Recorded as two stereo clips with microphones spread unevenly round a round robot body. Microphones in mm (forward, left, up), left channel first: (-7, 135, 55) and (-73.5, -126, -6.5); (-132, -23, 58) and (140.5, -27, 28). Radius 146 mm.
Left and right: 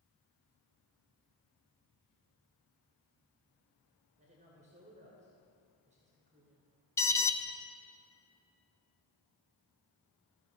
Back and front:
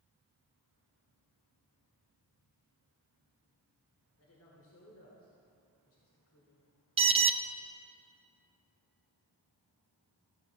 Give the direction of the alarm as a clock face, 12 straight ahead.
1 o'clock.